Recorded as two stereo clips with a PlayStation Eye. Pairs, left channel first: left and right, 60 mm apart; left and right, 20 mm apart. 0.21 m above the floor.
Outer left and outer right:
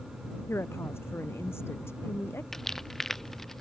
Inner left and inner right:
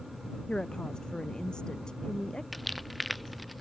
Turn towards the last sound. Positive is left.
turn(degrees=5)  # may be behind; listen again after turning